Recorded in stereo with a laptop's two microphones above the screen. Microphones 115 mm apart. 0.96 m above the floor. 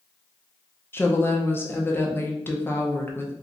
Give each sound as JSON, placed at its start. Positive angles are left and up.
{"t": 0.9, "sound": "a woman speaking", "side_deg": 20, "distance_m": 0.5}